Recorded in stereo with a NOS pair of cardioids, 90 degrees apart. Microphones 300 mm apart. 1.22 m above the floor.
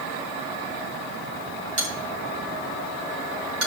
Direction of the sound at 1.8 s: 50° right.